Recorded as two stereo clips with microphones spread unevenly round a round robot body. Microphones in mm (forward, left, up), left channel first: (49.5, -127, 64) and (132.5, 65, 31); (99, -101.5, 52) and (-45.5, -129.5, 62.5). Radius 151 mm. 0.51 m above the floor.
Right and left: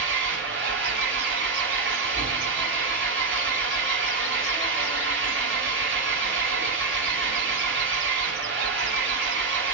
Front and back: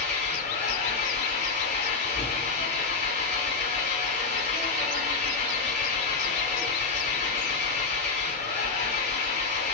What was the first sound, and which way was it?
An engine running, 40° left.